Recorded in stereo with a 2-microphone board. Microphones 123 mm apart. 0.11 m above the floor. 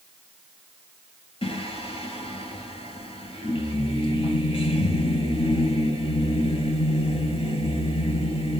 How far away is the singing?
About 0.7 m.